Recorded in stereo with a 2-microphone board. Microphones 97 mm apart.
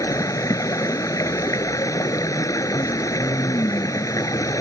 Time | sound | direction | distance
0.0 | running water | 35° left (ahead or behind) | ?